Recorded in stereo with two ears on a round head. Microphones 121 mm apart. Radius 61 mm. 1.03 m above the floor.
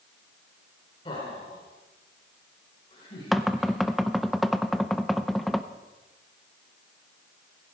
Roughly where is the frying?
I don't hear frying.